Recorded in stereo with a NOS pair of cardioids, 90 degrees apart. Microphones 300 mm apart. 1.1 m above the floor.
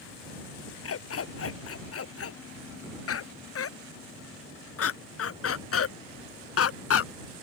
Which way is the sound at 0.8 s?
50° left.